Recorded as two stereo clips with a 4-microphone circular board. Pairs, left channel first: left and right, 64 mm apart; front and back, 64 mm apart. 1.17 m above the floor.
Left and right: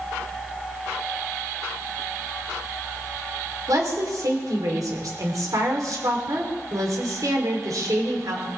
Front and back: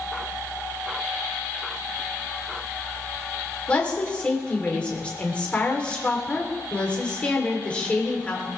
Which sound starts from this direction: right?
A woman speaking, at 3.7 s.